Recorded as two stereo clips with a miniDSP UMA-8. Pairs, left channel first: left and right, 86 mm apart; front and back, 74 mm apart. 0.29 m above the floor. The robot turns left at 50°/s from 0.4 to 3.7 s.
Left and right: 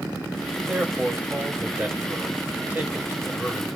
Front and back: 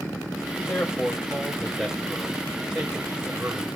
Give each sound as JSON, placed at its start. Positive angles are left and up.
{"t": 0.6, "sound": "a man speaking", "azimuth_deg": -15, "distance_m": 1.2}